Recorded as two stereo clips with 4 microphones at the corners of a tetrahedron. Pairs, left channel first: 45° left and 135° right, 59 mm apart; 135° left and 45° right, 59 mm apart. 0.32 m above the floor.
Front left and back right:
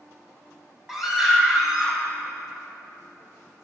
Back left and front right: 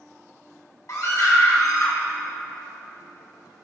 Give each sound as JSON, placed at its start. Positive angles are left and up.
{"t": 0.9, "sound": "a scream", "azimuth_deg": 140, "distance_m": 2.0}